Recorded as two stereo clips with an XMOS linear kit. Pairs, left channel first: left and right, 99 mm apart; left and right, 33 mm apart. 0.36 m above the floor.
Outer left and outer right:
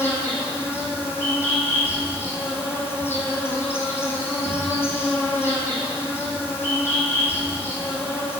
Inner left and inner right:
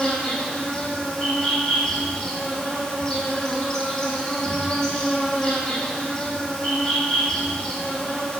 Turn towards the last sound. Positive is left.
turn(degrees=20)  # may be behind; listen again after turning